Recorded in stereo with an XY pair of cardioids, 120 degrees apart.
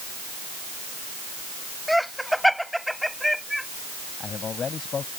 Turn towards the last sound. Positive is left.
turn(degrees=40)